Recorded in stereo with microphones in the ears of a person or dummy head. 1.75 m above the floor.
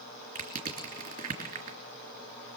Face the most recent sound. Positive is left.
turn(degrees=-35)  # may be behind; listen again after turning